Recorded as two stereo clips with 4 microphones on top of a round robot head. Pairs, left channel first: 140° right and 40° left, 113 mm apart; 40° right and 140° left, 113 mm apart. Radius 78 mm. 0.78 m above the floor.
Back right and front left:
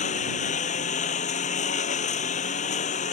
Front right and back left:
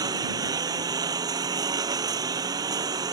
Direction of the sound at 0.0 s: 160° right.